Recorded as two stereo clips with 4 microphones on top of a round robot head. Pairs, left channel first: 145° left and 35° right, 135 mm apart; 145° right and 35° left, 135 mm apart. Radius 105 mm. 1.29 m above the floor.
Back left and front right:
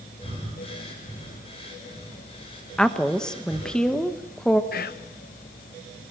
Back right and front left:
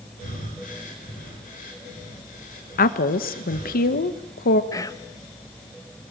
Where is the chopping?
No chopping in this recording.